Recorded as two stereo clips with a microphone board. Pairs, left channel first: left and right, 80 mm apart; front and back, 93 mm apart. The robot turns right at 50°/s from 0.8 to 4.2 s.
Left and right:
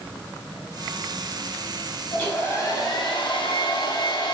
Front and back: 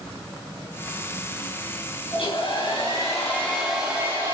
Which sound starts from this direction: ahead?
A hair dryer, at 2.1 s.